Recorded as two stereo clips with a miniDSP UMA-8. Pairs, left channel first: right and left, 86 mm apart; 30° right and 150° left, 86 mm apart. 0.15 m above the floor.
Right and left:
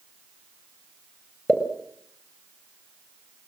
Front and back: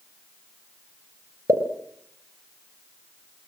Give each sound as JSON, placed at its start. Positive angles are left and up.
{"t": 1.5, "sound": "a pop", "azimuth_deg": -170, "distance_m": 3.0}